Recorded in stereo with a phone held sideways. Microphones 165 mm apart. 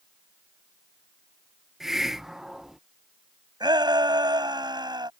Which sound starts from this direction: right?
A shout, at 3.6 s.